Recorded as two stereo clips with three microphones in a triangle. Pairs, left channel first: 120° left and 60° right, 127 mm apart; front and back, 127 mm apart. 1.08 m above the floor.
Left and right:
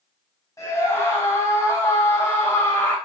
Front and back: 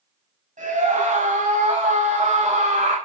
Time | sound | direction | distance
0.6 | a scream | 175° right | 6.5 m